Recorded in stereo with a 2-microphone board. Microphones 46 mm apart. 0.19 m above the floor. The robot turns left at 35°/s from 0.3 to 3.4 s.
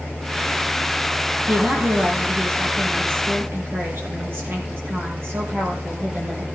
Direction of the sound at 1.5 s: 50° right.